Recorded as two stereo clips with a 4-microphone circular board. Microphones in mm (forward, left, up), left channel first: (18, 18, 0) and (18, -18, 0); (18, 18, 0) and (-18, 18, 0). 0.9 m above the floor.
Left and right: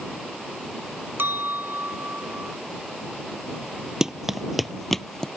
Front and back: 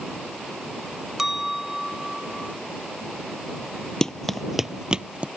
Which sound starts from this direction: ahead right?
Running footsteps, at 4.0 s.